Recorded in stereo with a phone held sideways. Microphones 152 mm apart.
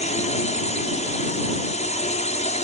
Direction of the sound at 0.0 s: 50° left (ahead or behind).